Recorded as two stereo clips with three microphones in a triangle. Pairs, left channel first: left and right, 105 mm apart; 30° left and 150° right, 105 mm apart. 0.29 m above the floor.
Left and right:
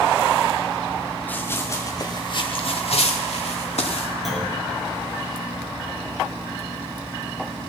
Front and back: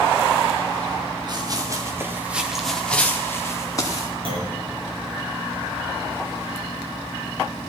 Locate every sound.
1.3 s running footsteps: 165° left, 2.5 m; by 4.1 s 80° left, 3 m
4.2 s a clunk: straight behind, 5.5 m